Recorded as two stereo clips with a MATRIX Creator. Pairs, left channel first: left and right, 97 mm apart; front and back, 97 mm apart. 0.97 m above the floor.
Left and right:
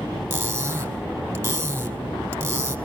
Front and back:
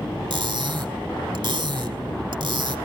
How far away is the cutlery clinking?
About 1.7 m.